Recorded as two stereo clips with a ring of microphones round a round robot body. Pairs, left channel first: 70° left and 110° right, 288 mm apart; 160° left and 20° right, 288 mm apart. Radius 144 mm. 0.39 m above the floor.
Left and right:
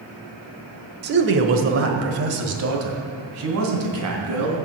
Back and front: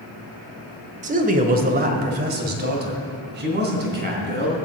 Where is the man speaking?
75° right, 1.1 m.